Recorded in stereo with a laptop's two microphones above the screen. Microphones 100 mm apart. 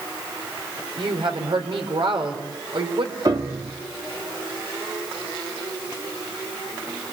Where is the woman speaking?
60° right (ahead or behind), 3.5 m.